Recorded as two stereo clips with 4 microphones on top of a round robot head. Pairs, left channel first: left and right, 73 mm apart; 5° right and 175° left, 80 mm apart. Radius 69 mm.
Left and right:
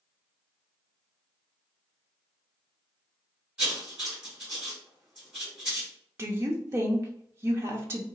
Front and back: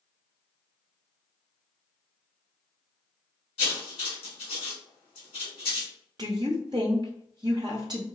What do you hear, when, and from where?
3.6 s writing: 15° right, 1.1 m
6.2 s a woman speaking: 135° right, 0.5 m